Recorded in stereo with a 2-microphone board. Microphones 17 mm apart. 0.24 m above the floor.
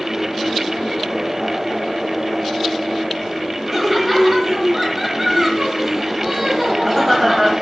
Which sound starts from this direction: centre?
Laughter, at 3.7 s.